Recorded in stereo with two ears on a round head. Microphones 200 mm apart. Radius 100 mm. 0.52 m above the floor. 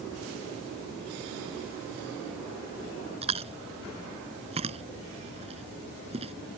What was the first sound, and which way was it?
Chewing, 30° right (ahead or behind).